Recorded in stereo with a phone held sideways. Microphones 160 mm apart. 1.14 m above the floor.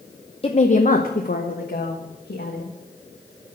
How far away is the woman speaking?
About 0.7 m.